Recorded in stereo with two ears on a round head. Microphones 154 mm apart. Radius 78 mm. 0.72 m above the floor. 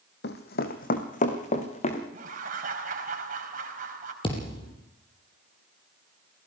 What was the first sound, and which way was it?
Running footsteps, 65° left (ahead or behind).